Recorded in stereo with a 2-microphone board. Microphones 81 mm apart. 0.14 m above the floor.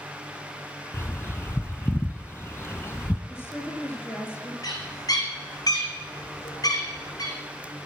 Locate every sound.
0.9 s a bird: 30° left (ahead or behind), 0.6 m
3.3 s a woman speaking: 30° left (ahead or behind), 2.5 m
4.6 s a bird: 50° left (ahead or behind), 2 m